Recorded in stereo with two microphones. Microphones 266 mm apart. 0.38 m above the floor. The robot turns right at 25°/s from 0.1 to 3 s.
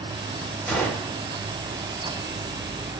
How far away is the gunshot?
About 1.6 m.